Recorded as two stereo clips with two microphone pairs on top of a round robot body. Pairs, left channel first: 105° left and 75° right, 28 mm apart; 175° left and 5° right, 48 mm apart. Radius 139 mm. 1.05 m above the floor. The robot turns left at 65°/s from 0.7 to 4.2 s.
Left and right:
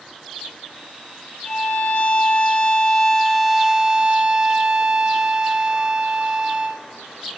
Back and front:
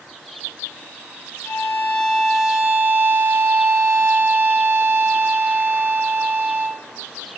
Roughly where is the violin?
Behind left.